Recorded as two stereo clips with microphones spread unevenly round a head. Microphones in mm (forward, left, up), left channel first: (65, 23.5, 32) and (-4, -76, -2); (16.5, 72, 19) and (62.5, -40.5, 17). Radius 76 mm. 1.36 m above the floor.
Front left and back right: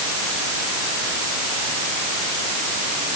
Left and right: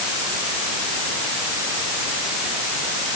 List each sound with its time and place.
Only background noise.